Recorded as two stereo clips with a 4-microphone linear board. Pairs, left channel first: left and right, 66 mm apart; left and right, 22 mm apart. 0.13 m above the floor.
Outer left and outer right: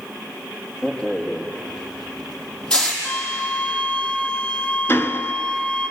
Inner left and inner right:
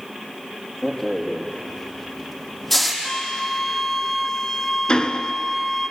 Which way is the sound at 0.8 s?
15° left (ahead or behind).